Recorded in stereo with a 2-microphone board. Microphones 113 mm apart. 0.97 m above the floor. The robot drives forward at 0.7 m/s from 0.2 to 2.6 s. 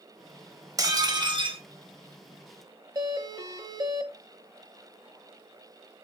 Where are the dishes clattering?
30° right (ahead or behind), 1.3 m; by 1.6 s 50° right (ahead or behind), 0.9 m.